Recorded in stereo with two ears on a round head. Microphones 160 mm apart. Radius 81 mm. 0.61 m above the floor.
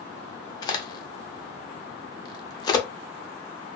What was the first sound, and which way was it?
A crack, 20° left (ahead or behind).